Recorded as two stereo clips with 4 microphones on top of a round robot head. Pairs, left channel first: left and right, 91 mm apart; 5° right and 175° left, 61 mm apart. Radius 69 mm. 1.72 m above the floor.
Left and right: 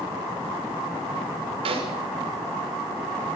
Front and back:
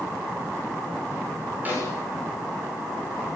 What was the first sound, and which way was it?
A snare drum, 115° right.